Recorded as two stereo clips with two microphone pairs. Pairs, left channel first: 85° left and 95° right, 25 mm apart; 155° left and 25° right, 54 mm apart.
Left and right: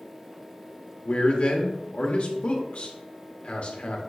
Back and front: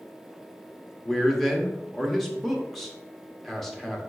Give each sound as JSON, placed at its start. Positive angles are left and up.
{"t": 1.0, "sound": "a man speaking", "azimuth_deg": 70, "distance_m": 0.9}